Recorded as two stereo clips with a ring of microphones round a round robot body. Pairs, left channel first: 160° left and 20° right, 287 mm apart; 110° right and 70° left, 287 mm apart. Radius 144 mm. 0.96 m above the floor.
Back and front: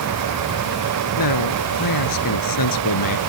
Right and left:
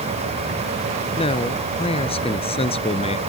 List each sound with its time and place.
1.2 s a man speaking: 175° left